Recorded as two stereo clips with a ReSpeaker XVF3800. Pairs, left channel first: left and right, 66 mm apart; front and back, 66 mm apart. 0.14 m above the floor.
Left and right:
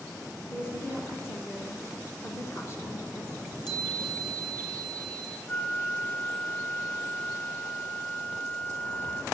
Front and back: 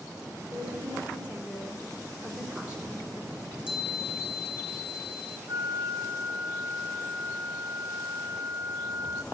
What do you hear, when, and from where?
0.5 s a woman speaking: 115° left, 1.8 m
3.3 s a chime: 105° left, 5 m
5.5 s a flute: 155° left, 0.7 m